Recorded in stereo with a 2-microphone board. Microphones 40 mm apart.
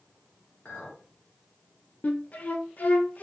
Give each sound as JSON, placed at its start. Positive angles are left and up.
{"t": 0.7, "sound": "a clink", "side_deg": 45, "distance_m": 1.3}
{"t": 2.0, "sound": "a flute", "side_deg": 40, "distance_m": 0.6}